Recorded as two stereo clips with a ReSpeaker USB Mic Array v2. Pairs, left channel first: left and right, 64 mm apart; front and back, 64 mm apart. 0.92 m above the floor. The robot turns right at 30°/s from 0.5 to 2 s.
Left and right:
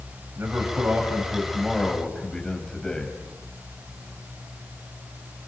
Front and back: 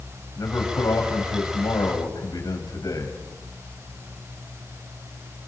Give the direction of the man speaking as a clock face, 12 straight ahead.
1 o'clock.